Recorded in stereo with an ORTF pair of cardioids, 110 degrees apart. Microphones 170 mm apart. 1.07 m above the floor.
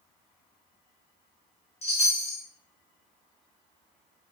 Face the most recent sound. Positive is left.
turn(degrees=40)